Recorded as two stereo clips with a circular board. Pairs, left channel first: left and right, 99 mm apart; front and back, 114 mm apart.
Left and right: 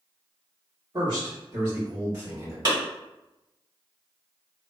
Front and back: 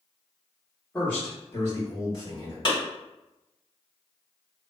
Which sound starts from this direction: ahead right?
A clap, at 2.6 s.